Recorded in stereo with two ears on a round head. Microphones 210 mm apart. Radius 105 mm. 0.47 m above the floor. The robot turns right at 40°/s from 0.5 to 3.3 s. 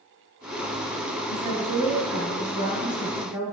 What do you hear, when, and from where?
1.3 s a woman speaking: 85° right, 5 m; by 3.4 s straight ahead, 5 m